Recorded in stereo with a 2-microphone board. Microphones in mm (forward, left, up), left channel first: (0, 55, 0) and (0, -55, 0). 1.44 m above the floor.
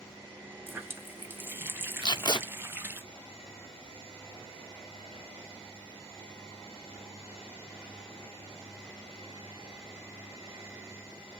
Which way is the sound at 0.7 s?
20° right (ahead or behind).